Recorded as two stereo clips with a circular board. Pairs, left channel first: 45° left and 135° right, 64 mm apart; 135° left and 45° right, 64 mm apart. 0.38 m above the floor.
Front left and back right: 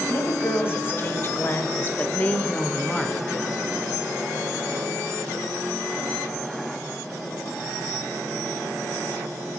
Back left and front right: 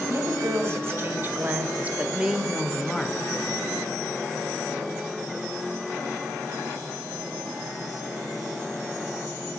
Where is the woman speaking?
5° right, 2.5 m; by 3.3 s 135° left, 1.1 m.